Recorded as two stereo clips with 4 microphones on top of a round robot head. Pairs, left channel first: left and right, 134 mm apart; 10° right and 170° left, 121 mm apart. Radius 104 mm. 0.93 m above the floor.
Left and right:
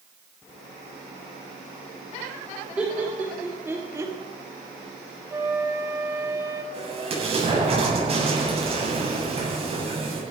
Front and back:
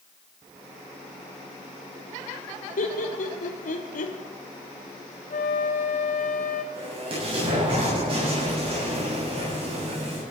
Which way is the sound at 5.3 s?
15° right.